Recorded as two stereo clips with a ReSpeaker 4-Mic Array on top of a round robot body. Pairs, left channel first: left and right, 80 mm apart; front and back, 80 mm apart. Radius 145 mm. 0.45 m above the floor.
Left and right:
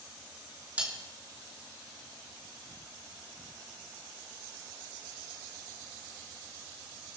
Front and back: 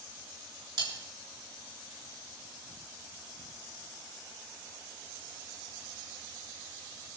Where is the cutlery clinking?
160° right, 4.5 m.